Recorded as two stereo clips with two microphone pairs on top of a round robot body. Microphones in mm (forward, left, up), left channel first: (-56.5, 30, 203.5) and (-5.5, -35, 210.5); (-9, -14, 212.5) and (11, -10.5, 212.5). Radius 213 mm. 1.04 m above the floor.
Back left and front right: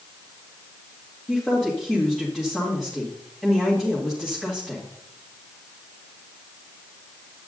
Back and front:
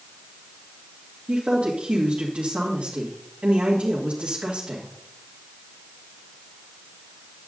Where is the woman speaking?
40° left, 2.0 m.